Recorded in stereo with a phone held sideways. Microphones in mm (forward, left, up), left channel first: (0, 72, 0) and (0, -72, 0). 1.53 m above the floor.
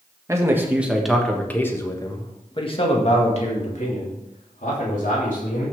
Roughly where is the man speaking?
Right.